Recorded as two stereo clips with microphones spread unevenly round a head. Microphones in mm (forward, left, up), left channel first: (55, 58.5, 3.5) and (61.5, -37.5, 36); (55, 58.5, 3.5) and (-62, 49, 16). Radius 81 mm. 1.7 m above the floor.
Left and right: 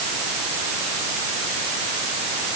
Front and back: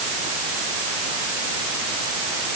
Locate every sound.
Only background noise.